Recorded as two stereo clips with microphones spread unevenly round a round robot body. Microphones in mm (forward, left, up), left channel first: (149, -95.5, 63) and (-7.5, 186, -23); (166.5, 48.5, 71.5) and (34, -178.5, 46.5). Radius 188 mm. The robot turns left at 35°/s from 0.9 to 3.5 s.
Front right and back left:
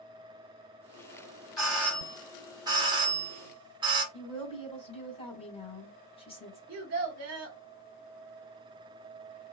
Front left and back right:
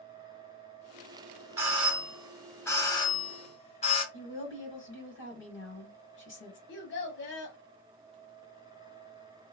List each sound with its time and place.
1.6 s a doorbell: straight behind, 1.4 m; by 4.0 s 110° left, 1.4 m
4.1 s a woman speaking: 20° left, 2.0 m
6.7 s a child speaking: 100° left, 1.1 m